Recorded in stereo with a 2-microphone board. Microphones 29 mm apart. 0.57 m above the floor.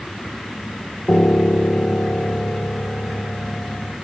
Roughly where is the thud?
No thud in this recording.